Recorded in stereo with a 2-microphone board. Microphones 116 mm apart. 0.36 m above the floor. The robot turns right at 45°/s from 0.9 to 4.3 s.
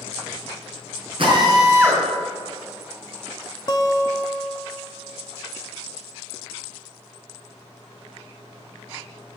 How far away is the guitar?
About 0.8 m.